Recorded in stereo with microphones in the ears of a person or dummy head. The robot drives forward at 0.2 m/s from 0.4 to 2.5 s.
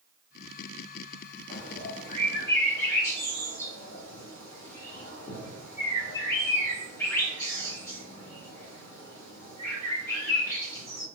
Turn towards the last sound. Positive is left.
turn(degrees=15)  # may be behind; listen again after turning